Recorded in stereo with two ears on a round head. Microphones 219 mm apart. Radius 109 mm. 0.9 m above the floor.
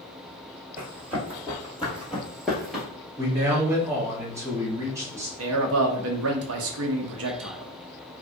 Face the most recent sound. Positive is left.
turn(degrees=-60)  # may be behind; listen again after turning